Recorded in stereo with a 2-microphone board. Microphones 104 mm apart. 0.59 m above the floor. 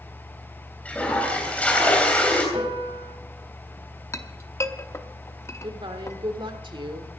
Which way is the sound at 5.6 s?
55° right (ahead or behind).